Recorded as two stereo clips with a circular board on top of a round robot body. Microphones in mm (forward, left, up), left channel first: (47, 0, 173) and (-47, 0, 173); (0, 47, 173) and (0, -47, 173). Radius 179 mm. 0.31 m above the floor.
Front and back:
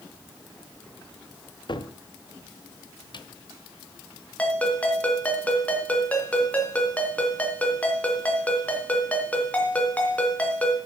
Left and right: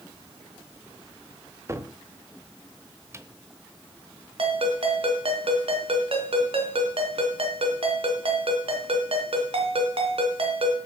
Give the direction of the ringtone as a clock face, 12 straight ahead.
2 o'clock.